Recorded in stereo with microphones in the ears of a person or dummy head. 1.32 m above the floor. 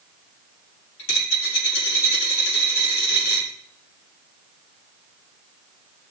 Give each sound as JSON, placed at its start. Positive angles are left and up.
{"t": 1.0, "sound": "a dropped coin", "side_deg": 75, "distance_m": 5.0}